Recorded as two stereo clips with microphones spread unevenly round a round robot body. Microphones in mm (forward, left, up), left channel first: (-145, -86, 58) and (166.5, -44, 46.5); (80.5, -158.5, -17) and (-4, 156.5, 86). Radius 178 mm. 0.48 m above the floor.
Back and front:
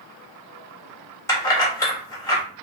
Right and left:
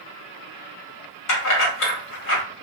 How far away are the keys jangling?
About 1.3 m.